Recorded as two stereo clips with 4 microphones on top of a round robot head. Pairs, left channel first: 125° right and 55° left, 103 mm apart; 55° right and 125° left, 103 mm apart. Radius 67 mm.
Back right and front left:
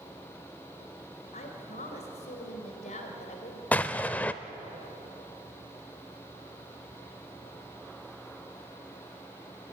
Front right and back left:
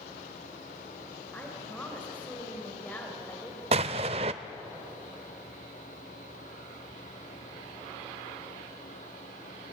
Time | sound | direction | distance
1.3 | a woman speaking | 130° right | 3 m
3.7 | an explosion | 155° left | 0.5 m